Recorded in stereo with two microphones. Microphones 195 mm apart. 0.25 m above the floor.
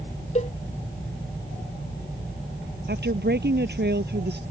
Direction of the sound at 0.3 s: 35° left (ahead or behind).